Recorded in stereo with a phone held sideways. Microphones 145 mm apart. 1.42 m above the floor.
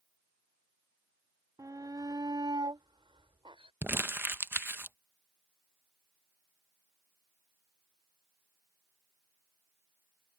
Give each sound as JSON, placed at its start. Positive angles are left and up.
{"t": 1.6, "sound": "a shout", "side_deg": -25}
{"t": 3.8, "sound": "crumpling", "side_deg": -15}